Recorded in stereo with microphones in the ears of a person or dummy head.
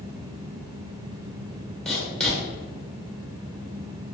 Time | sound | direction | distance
1.9 | writing | centre (ahead or behind) | 1.1 m